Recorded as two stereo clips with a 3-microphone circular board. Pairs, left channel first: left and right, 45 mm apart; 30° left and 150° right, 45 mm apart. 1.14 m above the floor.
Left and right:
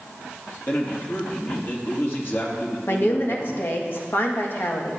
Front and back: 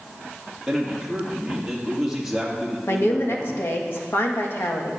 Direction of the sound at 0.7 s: 130° left.